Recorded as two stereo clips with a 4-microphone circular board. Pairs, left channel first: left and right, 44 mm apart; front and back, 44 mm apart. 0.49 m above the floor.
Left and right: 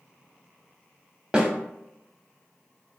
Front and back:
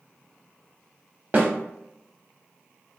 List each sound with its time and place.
1.3 s a snare drum: 155° right, 0.6 m